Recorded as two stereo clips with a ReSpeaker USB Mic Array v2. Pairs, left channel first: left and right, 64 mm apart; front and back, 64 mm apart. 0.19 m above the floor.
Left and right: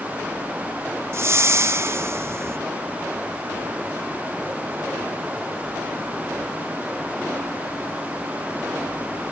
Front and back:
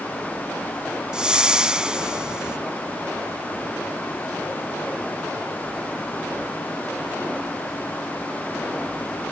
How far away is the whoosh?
About 0.7 m.